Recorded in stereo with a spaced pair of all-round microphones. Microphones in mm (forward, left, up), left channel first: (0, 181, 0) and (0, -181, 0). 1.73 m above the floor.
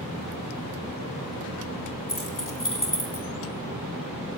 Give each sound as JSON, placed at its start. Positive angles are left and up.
{"t": 2.1, "sound": "keys jangling", "side_deg": 60, "distance_m": 3.0}